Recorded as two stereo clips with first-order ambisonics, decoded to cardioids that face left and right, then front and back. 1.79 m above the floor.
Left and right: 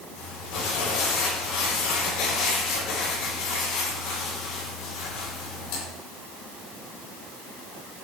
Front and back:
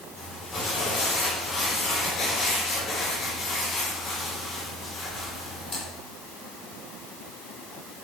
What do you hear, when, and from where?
0.2 s crumpling: 60° left, 5 m